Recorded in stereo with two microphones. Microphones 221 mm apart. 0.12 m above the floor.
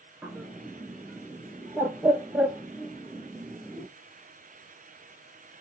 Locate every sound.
0.2 s a bird: 10° right (ahead or behind), 0.6 m